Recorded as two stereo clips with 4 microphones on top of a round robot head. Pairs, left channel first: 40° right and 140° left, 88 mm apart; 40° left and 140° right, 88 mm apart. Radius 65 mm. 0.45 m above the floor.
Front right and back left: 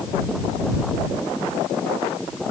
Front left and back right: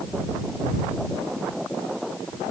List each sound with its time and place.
Only background noise.